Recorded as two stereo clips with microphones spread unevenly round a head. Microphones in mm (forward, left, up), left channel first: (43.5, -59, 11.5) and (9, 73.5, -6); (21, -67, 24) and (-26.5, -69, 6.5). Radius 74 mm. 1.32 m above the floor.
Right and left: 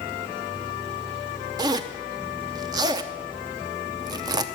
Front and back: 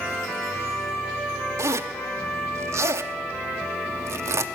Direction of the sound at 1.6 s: 170° left.